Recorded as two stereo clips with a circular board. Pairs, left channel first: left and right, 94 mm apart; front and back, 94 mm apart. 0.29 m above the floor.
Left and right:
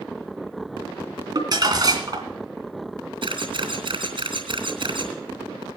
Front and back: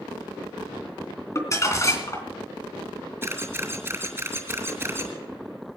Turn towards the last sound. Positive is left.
turn(degrees=-115)